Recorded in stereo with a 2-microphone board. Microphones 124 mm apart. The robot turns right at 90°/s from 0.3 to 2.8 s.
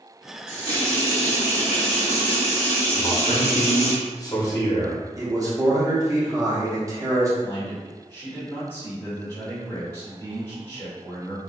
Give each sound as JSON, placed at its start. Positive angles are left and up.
{"t": 0.5, "sound": "a running tap", "azimuth_deg": -25, "distance_m": 1.7}
{"t": 2.9, "sound": "a man speaking", "side_deg": 30, "distance_m": 0.8}
{"t": 5.2, "sound": "a man speaking", "side_deg": -25, "distance_m": 0.8}
{"t": 7.4, "sound": "a man speaking", "side_deg": 20, "distance_m": 1.6}